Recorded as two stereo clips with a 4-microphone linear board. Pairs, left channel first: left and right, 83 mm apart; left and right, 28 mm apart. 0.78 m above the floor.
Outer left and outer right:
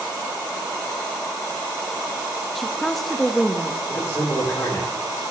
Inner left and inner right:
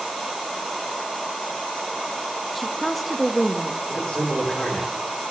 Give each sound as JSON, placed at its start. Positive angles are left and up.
{"t": 2.5, "sound": "a woman speaking", "side_deg": 0, "distance_m": 0.5}
{"t": 3.9, "sound": "a man speaking", "side_deg": 35, "distance_m": 2.5}